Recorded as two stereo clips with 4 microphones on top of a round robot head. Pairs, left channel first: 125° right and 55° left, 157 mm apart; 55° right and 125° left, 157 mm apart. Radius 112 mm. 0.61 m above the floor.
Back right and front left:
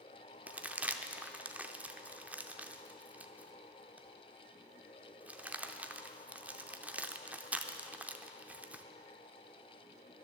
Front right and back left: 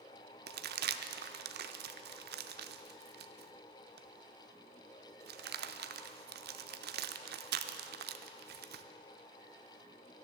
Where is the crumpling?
135° left, 0.6 m.